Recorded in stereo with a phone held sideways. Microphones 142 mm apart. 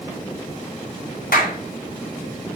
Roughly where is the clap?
Left.